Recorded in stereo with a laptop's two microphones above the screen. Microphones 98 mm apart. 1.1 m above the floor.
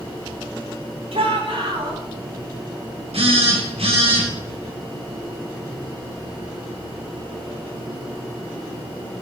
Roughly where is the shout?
Right.